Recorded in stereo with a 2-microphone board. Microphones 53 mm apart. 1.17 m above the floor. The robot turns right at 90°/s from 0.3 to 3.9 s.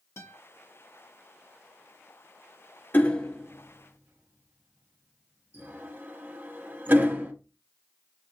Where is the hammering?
35° left (ahead or behind), 0.8 m; by 7.3 s 35° right (ahead or behind), 0.8 m.